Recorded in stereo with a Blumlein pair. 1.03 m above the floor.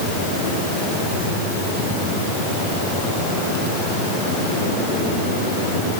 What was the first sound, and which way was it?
Only background noise.